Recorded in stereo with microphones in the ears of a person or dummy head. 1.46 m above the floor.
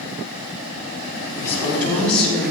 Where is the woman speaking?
15° left (ahead or behind), 4.5 m; by 2.5 s 5° left (ahead or behind), 4 m.